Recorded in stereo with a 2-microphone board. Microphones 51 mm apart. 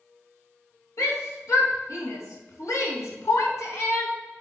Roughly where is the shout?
Left.